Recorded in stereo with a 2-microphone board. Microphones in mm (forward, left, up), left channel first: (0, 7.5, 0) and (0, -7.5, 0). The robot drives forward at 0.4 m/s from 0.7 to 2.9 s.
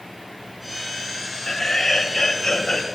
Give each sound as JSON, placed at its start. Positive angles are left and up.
{"t": 1.5, "sound": "laughter", "side_deg": 35, "distance_m": 1.8}